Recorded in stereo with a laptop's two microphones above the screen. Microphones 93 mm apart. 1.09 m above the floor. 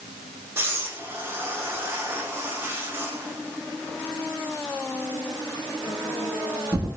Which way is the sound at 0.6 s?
25° right (ahead or behind).